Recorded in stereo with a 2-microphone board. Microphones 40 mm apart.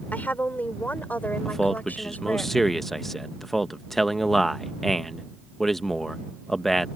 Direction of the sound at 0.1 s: 45° left (ahead or behind).